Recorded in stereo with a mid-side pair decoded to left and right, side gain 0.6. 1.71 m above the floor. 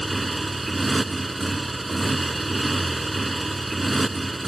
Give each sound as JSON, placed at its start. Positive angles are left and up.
{"t": 0.0, "sound": "a motorcycle", "azimuth_deg": -15}